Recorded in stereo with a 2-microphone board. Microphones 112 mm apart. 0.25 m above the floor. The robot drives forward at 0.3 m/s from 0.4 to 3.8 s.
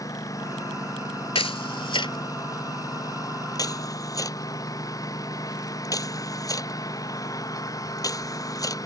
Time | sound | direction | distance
0.0 | a lawn mower | 30° left (ahead or behind) | ?
1.4 | a camera shutter | 55° left (ahead or behind) | ?